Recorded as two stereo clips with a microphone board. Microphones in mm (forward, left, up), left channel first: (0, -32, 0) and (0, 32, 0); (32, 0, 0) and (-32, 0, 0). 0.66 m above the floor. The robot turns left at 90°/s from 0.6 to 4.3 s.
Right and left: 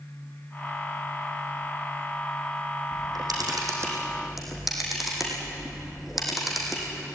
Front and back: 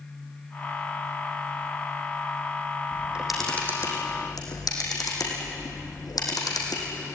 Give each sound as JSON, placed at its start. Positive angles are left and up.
{"t": 2.9, "sound": "a camera shutter", "azimuth_deg": 130, "distance_m": 5.5}